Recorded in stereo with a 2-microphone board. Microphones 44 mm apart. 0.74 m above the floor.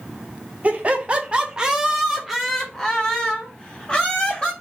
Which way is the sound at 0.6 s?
35° right (ahead or behind).